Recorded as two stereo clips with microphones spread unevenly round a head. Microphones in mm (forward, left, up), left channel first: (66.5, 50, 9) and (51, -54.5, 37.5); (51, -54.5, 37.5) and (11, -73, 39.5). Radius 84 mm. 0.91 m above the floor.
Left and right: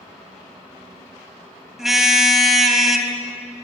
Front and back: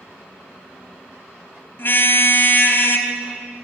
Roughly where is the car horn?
Ahead.